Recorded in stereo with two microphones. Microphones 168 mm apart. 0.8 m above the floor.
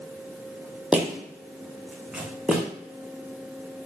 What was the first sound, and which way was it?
Footsteps, 5° right (ahead or behind).